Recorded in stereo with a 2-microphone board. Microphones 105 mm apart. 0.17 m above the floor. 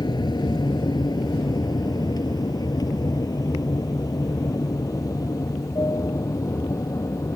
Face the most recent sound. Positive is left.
turn(degrees=30)  # may be behind; listen again after turning